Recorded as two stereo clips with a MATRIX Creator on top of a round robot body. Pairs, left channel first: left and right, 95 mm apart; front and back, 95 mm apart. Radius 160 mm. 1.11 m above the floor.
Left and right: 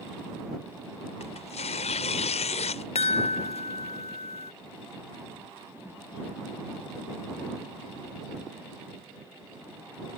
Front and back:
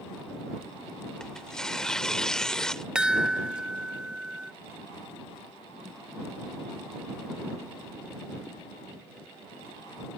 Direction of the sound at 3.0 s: 100° left.